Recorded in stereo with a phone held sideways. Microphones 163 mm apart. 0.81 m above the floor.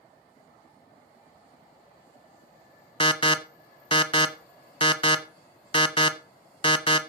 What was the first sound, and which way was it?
An alarm, 30° left (ahead or behind).